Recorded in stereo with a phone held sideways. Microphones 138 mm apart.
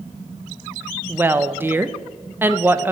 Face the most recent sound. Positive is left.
turn(degrees=-15)  # may be behind; listen again after turning